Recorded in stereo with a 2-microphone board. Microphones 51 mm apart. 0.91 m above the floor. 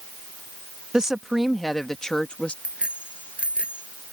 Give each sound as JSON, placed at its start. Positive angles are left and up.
{"t": 0.9, "sound": "a woman speaking", "side_deg": -15}
{"t": 2.6, "sound": "a bicycle bell", "side_deg": -20}